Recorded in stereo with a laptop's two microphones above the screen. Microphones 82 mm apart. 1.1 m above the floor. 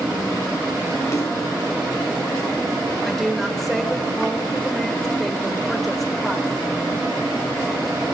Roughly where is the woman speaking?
Centre.